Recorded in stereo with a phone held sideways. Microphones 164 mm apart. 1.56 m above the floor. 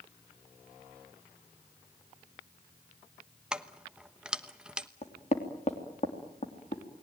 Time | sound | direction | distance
3.5 | keys jangling | 5° right (ahead or behind) | 1.0 m
5.0 | knocking | 45° left (ahead or behind) | 3 m